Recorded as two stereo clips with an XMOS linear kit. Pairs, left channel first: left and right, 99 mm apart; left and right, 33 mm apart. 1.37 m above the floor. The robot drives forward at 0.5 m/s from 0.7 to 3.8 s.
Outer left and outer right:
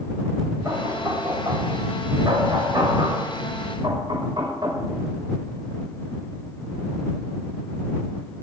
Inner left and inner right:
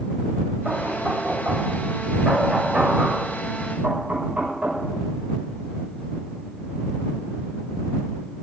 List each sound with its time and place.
0.7 s knocking: 35° right (ahead or behind), 6.5 m; by 4.8 s 45° right (ahead or behind), 5.5 m